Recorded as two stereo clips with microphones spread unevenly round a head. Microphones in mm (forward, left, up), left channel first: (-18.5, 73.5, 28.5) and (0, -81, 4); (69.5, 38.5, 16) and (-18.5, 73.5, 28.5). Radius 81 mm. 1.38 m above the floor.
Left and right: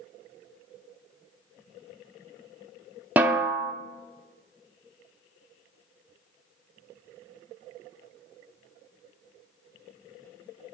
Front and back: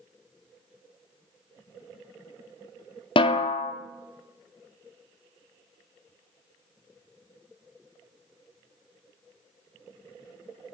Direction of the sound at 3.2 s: 5° right.